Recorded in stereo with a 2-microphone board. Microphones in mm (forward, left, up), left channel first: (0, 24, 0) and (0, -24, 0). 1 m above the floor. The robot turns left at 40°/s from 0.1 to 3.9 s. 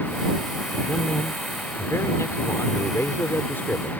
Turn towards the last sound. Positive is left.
turn(degrees=35)